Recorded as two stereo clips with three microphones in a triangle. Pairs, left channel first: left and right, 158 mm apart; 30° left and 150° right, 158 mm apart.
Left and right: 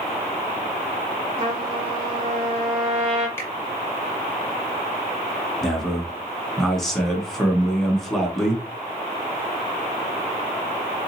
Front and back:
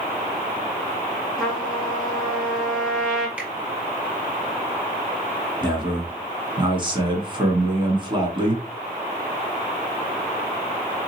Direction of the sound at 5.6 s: 175° left.